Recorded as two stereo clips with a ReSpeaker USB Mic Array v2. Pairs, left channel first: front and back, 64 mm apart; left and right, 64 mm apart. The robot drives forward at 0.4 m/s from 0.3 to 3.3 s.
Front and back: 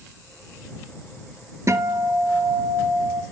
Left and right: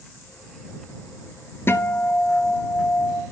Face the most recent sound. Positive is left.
turn(degrees=160)